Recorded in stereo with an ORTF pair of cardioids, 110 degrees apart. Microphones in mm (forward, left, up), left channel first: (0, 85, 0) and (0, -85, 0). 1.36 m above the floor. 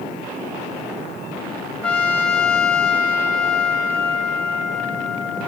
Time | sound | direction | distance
1.8 | a trumpet | 5° left | 2.5 m